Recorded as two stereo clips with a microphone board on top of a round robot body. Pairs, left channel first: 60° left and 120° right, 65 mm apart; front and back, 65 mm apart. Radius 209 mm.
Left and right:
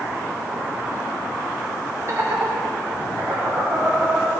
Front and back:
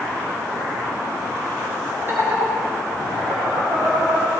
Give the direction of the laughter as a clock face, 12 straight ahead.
5 o'clock.